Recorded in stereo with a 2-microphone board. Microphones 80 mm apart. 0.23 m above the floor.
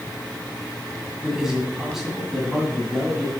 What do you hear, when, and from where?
1.2 s a man speaking: 5° right (ahead or behind), 1.8 m